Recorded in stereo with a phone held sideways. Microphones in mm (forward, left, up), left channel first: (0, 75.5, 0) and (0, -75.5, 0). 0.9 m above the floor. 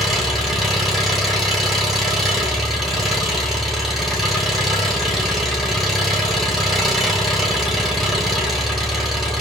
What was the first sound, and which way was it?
An engine running, centre (ahead or behind).